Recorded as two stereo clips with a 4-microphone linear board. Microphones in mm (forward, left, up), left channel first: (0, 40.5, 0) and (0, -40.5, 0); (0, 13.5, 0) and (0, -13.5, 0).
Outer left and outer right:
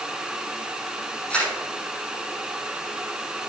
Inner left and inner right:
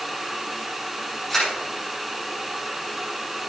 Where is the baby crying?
I don't hear a baby crying.